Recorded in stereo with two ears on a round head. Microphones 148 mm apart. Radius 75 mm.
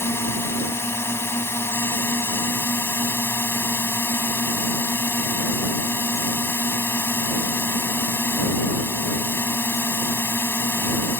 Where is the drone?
15° left (ahead or behind).